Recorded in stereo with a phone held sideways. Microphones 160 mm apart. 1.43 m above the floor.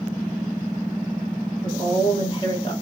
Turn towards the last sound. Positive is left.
turn(degrees=35)  # may be behind; listen again after turning